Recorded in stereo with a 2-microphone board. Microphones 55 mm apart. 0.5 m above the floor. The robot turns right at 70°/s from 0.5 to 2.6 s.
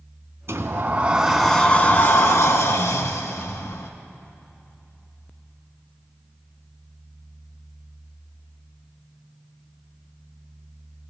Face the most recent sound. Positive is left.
turn(degrees=85)